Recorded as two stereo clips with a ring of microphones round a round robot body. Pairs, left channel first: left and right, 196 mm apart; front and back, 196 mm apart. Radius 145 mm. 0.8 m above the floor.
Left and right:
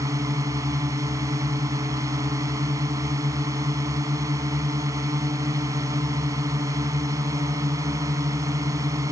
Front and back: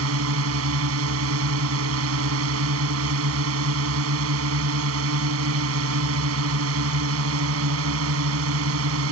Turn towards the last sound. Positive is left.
turn(degrees=-170)